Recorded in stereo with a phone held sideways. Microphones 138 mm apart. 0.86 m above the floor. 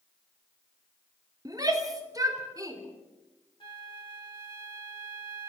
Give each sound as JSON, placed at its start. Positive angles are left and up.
{"t": 1.4, "sound": "a shout", "side_deg": -30, "distance_m": 2.5}
{"t": 3.6, "sound": "a flute", "side_deg": 40, "distance_m": 1.8}